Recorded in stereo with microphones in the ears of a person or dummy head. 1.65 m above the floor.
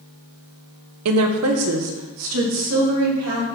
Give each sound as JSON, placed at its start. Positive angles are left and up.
{"t": 1.1, "sound": "a woman speaking", "side_deg": -80, "distance_m": 1.0}